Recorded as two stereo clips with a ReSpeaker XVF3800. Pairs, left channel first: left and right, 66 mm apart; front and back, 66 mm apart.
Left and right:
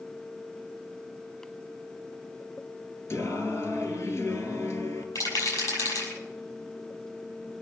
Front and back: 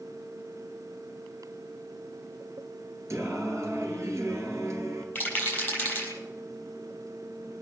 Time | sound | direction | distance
3.1 | singing | 140° left | 2 m
5.2 | a rattle | 65° left | 6 m